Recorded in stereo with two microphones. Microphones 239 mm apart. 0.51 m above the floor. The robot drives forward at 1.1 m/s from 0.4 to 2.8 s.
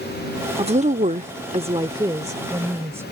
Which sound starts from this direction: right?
A woman speaking, at 0.6 s.